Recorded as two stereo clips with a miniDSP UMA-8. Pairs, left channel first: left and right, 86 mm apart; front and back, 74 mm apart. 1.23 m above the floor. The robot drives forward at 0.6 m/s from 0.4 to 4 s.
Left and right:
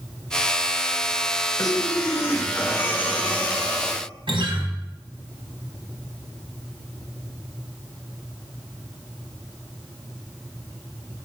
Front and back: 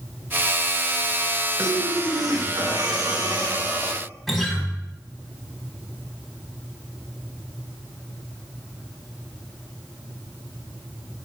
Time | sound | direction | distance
1.6 | breathing | 135° left | 0.8 m
4.3 | a guitar | 90° right | 1.8 m